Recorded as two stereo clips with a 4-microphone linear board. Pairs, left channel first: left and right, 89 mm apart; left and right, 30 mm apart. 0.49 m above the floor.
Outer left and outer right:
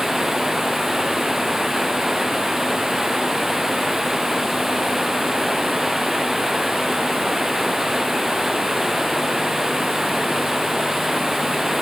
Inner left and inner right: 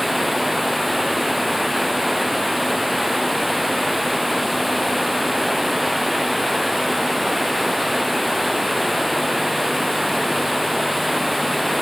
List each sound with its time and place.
0.0 s running water: 5° right (ahead or behind)